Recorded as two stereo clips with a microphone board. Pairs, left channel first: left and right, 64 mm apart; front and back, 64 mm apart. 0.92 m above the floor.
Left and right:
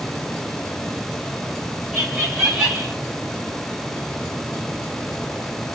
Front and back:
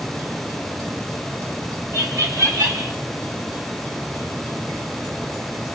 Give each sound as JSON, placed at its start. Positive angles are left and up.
{"t": 1.9, "sound": "laughter", "azimuth_deg": 180, "distance_m": 1.3}